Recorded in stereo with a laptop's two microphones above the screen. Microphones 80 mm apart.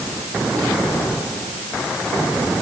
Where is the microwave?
No microwave in this recording.